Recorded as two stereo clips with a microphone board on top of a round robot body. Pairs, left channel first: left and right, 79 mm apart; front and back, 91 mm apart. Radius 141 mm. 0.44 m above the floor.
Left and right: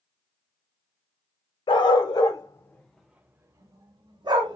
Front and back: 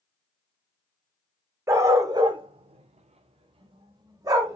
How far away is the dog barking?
About 0.8 m.